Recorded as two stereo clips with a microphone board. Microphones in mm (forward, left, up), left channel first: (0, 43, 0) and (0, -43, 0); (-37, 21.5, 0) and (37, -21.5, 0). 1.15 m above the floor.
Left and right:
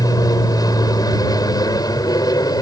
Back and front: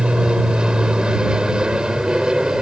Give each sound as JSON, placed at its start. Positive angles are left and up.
{"t": 0.0, "sound": "an aircraft", "azimuth_deg": 50}